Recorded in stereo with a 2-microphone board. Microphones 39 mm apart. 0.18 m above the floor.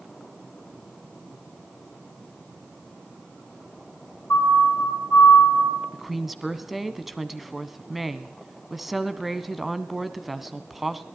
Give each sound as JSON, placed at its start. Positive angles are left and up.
{"t": 4.3, "sound": "a siren", "side_deg": 60, "distance_m": 4.5}
{"t": 5.9, "sound": "a woman speaking", "side_deg": -5, "distance_m": 1.3}